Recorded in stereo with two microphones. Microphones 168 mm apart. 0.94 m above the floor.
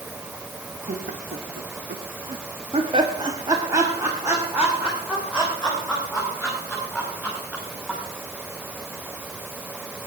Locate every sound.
0.9 s laughter: 50° right (ahead or behind), 1.2 m; by 8.0 s centre (ahead or behind), 5.5 m